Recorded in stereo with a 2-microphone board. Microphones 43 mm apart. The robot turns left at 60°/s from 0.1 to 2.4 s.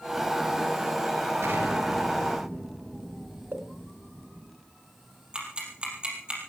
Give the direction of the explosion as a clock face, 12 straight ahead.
4 o'clock.